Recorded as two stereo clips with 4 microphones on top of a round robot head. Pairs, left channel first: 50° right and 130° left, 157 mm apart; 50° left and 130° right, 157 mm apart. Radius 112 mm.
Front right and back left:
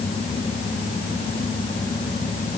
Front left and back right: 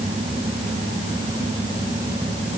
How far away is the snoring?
No snoring in this recording.